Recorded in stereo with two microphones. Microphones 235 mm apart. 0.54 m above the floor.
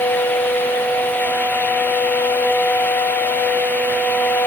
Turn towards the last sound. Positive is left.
No sound to turn to.